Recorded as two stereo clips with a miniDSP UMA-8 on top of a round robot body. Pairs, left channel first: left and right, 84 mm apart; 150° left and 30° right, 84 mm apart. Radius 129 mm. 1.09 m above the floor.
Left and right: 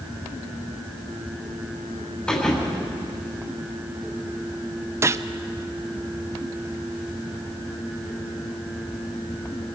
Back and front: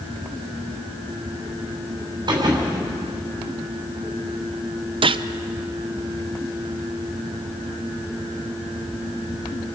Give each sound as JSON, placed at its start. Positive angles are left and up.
{"t": 2.3, "sound": "a thud", "azimuth_deg": 10, "distance_m": 3.5}
{"t": 5.0, "sound": "a gunshot", "azimuth_deg": -30, "distance_m": 0.6}